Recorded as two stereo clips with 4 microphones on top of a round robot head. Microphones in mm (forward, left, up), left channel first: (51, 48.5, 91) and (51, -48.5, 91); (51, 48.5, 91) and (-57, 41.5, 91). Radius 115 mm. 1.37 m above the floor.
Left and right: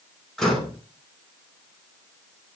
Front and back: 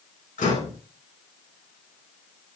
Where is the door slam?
Straight ahead, 5.5 m.